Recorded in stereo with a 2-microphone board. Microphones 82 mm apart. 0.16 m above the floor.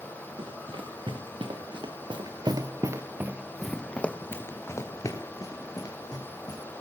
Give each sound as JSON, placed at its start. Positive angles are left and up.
{"t": 0.4, "sound": "running footsteps", "side_deg": -90, "distance_m": 3.5}